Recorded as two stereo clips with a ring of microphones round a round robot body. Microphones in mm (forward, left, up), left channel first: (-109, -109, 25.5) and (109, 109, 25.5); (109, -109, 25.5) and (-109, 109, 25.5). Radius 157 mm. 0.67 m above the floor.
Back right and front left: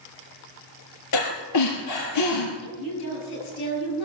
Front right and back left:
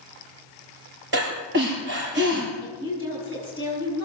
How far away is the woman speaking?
About 7.5 m.